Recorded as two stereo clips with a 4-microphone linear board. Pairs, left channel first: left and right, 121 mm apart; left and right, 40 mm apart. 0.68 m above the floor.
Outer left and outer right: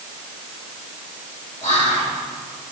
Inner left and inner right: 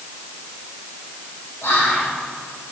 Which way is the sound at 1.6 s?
75° left (ahead or behind).